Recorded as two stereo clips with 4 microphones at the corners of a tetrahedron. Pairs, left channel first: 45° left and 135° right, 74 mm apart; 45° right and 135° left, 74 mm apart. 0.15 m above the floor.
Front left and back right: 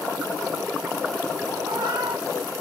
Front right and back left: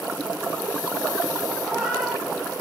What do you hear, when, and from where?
1.6 s a cat meowing: 145° right, 3.5 m; by 2.6 s 130° right, 3 m